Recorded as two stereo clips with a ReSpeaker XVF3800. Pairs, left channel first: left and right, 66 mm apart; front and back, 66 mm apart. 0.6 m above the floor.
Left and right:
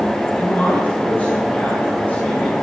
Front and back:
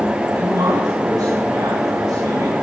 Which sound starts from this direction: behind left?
A man speaking, at 0.3 s.